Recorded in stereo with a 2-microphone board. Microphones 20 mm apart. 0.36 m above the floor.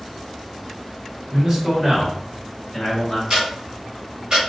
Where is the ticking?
45° right (ahead or behind), 1.6 m.